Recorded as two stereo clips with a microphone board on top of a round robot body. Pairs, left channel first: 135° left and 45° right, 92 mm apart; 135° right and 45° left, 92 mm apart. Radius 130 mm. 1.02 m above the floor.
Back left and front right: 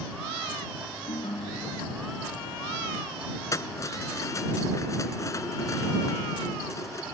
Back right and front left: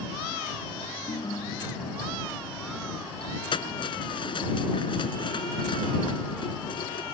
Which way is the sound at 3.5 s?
165° right.